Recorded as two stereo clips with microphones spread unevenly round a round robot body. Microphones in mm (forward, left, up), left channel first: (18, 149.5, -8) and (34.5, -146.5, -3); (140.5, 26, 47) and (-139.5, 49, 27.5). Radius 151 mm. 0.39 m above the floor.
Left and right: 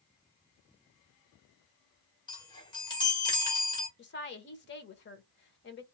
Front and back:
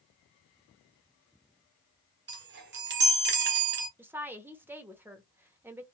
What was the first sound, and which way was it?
A chime, 160° left.